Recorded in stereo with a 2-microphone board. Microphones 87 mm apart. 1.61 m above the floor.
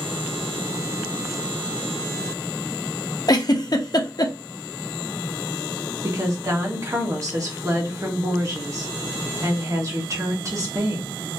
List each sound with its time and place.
3.3 s a giggle: 50° left (ahead or behind), 0.6 m
6.0 s a woman speaking: 40° right (ahead or behind), 1.2 m